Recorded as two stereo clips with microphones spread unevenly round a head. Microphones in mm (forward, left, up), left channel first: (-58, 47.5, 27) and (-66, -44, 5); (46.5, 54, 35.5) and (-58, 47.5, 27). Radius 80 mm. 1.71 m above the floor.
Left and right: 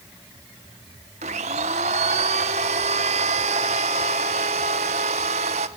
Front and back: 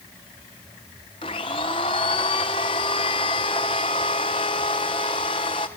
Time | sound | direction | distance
1.2 | a blender | 55° right | 1.3 m